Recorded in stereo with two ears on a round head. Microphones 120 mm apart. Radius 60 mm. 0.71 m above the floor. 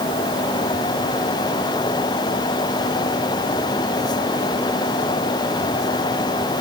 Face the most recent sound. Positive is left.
No sound to turn to.